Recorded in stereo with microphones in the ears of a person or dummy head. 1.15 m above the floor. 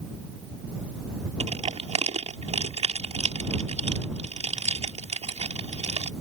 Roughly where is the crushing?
Right.